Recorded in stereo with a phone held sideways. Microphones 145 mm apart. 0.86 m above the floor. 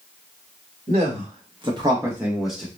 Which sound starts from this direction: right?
A man speaking, at 0.9 s.